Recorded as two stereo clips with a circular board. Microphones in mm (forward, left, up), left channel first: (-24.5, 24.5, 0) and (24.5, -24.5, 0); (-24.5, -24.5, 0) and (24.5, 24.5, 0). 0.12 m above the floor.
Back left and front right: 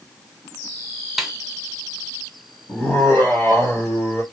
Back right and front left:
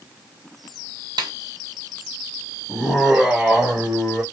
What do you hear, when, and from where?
1.2 s a snare drum: 40° left, 0.7 m
2.7 s laughter: 125° left, 1.5 m